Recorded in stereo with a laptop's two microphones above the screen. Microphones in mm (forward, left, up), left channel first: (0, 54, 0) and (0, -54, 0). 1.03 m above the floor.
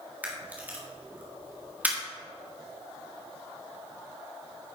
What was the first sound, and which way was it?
A camera shutter, 15° right (ahead or behind).